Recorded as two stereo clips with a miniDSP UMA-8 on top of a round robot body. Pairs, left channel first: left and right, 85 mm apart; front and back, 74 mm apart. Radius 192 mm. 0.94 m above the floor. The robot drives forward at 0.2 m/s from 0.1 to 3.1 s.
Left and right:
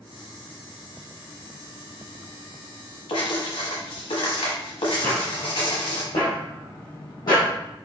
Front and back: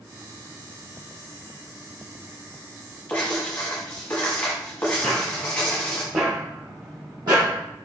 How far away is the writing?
About 0.9 m.